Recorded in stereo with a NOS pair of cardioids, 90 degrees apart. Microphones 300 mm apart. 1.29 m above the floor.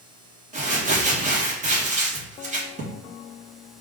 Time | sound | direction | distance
0.5 | crumpling | 25° right | 1.5 m